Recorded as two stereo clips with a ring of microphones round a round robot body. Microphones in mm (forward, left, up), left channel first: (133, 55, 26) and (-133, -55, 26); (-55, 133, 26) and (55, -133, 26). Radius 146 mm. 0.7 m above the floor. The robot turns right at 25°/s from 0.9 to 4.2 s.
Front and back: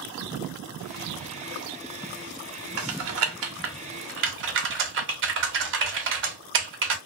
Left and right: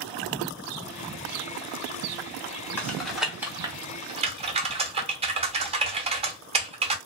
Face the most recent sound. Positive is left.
turn(degrees=-130)